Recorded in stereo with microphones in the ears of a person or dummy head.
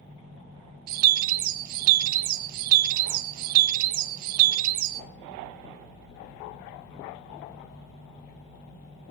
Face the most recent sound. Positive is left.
turn(degrees=-55)  # may be behind; listen again after turning